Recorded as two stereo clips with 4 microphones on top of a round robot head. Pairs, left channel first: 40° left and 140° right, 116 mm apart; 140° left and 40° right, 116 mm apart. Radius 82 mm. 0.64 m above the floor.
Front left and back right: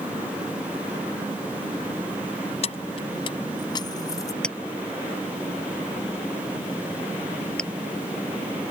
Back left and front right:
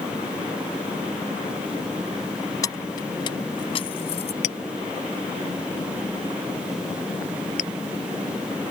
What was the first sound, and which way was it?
Keys jangling, 80° left.